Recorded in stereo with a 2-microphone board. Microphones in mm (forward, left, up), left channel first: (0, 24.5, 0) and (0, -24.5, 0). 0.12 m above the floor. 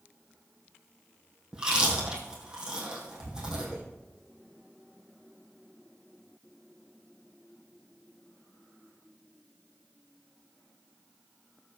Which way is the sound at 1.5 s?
15° right (ahead or behind).